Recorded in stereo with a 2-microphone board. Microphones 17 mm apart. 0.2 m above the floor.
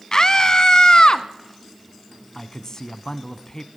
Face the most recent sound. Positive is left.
turn(degrees=35)  # may be behind; listen again after turning